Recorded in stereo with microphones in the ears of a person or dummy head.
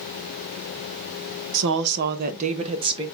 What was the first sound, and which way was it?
A woman speaking, 70° right (ahead or behind).